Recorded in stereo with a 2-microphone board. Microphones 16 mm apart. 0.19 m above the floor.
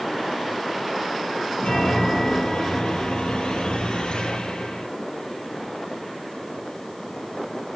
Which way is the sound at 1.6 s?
75° left (ahead or behind).